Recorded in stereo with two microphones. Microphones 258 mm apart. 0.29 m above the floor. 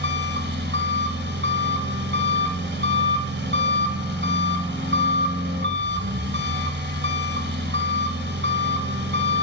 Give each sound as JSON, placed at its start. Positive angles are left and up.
{"t": 0.0, "sound": "an engine running", "side_deg": -45, "distance_m": 1.1}